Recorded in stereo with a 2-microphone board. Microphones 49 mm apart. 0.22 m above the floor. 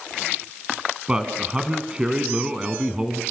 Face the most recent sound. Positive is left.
turn(degrees=-20)  # may be behind; listen again after turning